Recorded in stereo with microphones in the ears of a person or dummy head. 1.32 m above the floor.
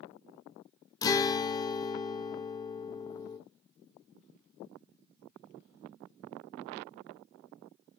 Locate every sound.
1.0 s a guitar: 20° left (ahead or behind), 0.5 m